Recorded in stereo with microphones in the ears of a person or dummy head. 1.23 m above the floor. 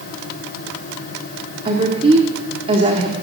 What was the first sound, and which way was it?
A woman speaking, 40° right (ahead or behind).